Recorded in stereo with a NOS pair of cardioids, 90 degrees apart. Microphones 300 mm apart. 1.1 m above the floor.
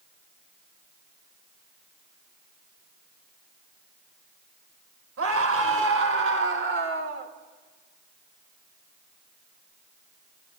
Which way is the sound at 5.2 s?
50° right.